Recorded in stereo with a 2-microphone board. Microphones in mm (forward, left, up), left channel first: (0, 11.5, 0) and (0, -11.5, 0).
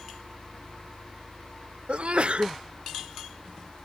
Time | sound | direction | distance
1.9 | a sneeze | 60° right (ahead or behind) | ?